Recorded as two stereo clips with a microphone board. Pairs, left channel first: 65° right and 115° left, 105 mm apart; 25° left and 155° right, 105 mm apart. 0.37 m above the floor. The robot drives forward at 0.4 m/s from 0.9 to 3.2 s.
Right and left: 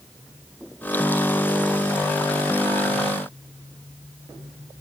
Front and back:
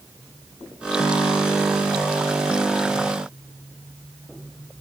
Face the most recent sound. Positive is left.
No sound to turn to.